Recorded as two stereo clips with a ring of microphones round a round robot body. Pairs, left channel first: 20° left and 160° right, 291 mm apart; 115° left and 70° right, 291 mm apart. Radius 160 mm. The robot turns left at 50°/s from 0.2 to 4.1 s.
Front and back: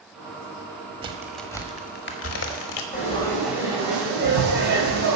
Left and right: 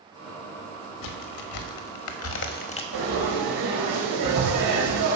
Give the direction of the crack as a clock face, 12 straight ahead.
8 o'clock.